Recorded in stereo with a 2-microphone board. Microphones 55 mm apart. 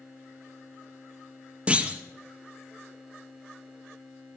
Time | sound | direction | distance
1.7 | a clunk | 25° right (ahead or behind) | 0.8 m